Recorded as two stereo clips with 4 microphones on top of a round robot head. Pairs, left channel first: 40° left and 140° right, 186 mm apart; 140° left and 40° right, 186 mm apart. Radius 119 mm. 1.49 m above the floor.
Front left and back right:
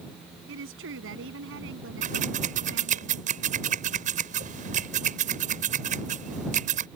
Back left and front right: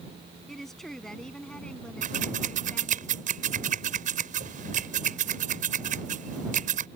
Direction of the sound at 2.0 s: 90° right.